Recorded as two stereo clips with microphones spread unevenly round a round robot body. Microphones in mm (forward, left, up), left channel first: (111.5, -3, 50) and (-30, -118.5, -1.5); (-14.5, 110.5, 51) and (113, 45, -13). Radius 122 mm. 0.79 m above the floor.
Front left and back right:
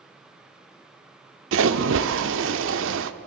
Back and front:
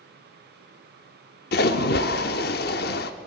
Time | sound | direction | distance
1.5 | a splash | 175° right | 0.9 m